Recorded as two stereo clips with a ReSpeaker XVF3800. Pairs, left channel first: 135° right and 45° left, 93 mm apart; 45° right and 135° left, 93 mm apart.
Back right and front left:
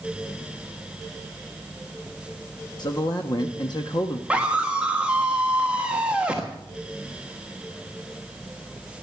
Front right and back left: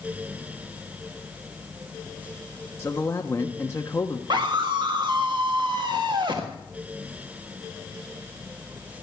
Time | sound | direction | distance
2.8 | a man speaking | 105° right | 0.9 m
4.3 | a scream | 120° left | 1.3 m